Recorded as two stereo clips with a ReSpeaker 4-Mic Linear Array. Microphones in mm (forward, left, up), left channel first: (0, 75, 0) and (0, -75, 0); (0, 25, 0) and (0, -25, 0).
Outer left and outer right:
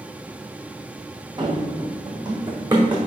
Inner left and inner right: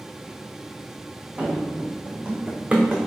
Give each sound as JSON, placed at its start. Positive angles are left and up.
{"t": 1.4, "sound": "running footsteps", "side_deg": -30, "distance_m": 1.3}